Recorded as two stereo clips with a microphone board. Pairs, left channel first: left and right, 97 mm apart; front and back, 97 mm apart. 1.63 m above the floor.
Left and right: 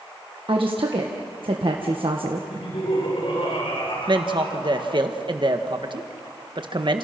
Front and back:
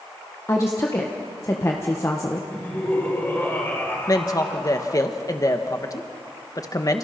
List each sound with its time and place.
0.5 s a woman speaking: 60° right, 1.6 m
2.5 s laughter: 70° left, 7 m
4.1 s a man speaking: 55° right, 1.8 m